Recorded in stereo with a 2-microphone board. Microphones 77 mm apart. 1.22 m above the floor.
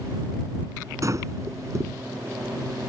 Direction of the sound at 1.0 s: 45° right (ahead or behind).